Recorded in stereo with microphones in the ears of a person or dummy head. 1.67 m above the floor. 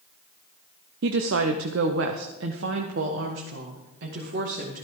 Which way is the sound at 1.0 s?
60° right (ahead or behind).